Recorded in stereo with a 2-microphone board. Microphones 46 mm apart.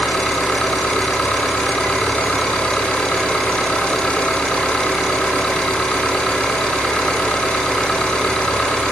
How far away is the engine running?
About 7.5 m.